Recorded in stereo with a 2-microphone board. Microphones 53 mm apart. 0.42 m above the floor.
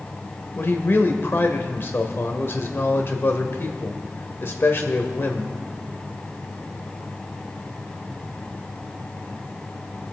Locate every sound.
0.6 s a man speaking: 45° left (ahead or behind), 1.4 m